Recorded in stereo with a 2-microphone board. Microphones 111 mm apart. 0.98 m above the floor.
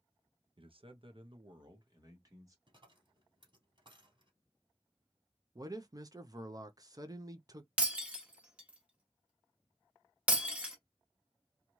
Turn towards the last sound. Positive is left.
turn(degrees=-10)  # may be behind; listen again after turning